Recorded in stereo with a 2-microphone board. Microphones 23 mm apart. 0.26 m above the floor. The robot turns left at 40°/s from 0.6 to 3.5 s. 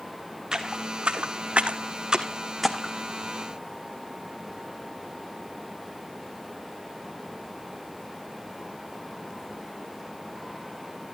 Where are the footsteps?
35° right (ahead or behind), 1.6 m; by 2.9 s 15° left (ahead or behind), 1.3 m.